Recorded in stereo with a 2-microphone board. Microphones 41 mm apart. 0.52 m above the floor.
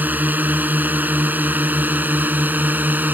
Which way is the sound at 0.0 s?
45° right (ahead or behind).